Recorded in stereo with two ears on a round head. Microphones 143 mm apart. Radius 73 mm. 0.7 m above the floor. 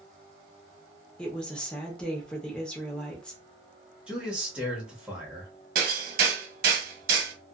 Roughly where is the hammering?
Right.